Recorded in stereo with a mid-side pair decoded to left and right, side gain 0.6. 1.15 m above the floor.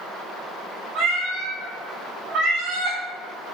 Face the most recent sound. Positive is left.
turn(degrees=-65)